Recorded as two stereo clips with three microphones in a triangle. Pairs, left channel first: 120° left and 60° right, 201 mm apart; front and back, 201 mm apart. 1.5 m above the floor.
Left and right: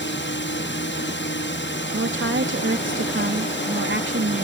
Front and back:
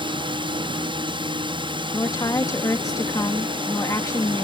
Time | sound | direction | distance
0.0 | a drone | 115° left | ?
1.9 | a woman speaking | 75° right | ?